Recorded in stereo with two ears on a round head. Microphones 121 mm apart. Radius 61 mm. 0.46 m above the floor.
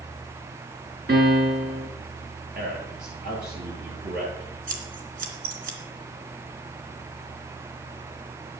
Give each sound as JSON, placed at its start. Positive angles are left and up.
{"t": 1.1, "sound": "a piano", "side_deg": -75, "distance_m": 3.5}
{"t": 2.5, "sound": "a man speaking", "side_deg": -70, "distance_m": 9.5}
{"t": 4.7, "sound": "scissors", "side_deg": -65, "distance_m": 2.5}